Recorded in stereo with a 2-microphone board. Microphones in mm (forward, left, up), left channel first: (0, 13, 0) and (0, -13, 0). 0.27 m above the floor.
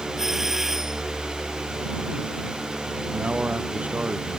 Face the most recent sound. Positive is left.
turn(degrees=-75)  # may be behind; listen again after turning